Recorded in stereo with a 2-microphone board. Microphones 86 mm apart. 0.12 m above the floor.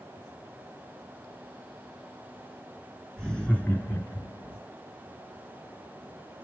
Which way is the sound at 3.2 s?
5° left (ahead or behind).